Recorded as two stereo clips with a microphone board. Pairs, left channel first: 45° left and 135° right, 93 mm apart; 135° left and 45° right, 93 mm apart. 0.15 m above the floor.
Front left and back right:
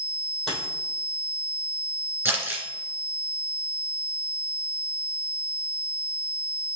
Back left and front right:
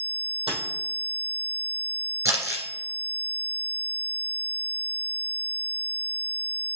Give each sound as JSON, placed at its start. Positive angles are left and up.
{"t": 0.5, "sound": "a dropped coin", "azimuth_deg": -40, "distance_m": 3.0}
{"t": 2.2, "sound": "crumpling", "azimuth_deg": -75, "distance_m": 2.0}